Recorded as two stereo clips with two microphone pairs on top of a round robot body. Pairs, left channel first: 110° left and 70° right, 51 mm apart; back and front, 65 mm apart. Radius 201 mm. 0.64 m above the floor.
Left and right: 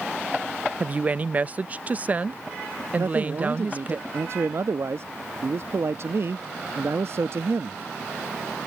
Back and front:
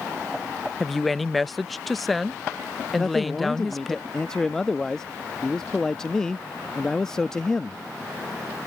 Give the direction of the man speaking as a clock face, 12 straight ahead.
3 o'clock.